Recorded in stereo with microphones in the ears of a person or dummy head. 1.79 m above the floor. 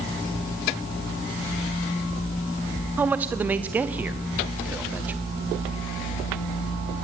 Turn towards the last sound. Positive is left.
turn(degrees=-10)  # may be behind; listen again after turning